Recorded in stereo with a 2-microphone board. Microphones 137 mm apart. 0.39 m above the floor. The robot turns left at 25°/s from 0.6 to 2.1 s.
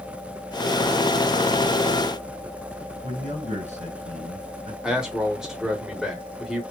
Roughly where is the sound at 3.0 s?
Right.